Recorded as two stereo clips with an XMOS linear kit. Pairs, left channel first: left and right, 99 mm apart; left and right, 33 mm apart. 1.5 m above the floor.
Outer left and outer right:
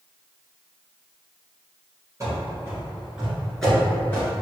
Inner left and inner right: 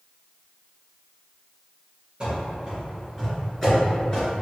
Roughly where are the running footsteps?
Right.